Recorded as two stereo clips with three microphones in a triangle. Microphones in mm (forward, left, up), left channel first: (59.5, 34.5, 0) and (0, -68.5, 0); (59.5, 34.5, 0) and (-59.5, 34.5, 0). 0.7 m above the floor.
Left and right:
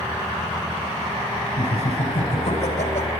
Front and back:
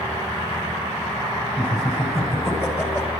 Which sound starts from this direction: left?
Laughter, at 1.6 s.